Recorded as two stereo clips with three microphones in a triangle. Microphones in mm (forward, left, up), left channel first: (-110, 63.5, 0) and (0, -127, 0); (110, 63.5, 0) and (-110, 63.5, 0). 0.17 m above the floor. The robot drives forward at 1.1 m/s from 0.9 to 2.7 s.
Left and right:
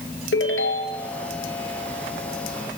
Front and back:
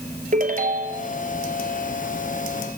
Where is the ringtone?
130° left, 1.7 m; by 1.1 s 135° left, 1.8 m.